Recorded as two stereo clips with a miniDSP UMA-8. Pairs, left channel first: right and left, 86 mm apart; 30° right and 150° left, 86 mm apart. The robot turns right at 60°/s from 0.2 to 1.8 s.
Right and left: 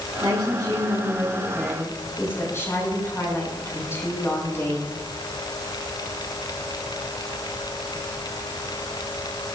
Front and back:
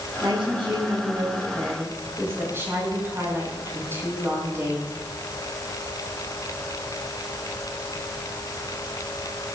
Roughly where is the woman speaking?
Behind left.